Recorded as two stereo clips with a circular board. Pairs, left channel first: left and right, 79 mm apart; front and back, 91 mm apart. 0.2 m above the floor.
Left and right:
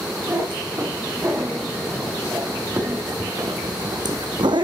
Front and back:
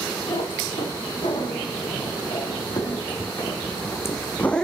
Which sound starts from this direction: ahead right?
A cat meowing, at 0.3 s.